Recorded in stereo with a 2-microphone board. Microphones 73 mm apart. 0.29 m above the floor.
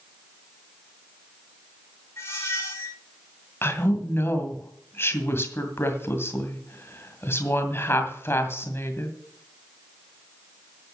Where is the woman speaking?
35° left (ahead or behind), 2 m.